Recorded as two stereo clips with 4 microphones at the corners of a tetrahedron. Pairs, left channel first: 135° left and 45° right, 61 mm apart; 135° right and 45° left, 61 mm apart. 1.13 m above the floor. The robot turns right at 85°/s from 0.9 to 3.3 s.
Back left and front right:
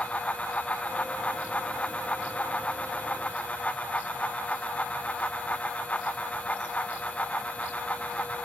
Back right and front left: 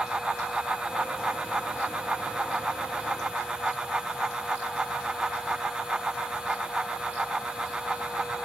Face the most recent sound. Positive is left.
No sound to turn to.